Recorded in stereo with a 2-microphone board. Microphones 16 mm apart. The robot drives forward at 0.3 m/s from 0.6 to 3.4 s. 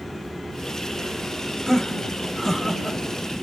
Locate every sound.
1.7 s laughter: 35° left (ahead or behind), 1.5 m; by 3.4 s 50° left (ahead or behind), 1.1 m